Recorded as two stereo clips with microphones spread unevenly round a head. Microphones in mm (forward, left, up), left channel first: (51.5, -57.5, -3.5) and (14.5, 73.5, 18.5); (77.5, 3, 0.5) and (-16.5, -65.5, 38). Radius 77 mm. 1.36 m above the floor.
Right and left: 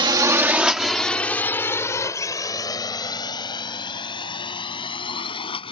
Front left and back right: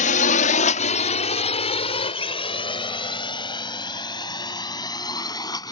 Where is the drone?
50° left; by 5.7 s 20° right.